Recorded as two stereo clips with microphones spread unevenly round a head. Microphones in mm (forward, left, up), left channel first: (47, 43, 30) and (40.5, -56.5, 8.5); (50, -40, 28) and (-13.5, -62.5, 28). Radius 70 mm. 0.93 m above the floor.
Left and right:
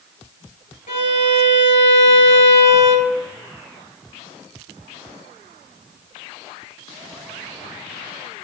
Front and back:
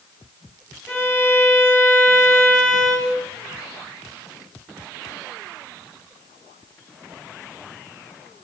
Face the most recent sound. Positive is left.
turn(degrees=125)